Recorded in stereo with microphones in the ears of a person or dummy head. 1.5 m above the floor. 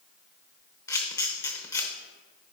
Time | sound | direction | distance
0.9 | a camera shutter | 20° left (ahead or behind) | 1.0 m